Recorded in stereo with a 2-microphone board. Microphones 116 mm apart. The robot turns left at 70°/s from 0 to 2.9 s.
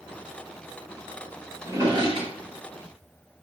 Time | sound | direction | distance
1.6 | a drawer | 20° right (ahead or behind) | 1.2 m